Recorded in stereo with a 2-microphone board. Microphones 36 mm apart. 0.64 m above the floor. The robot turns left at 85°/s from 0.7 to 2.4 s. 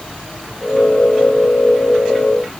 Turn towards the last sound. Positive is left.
No sound to turn to.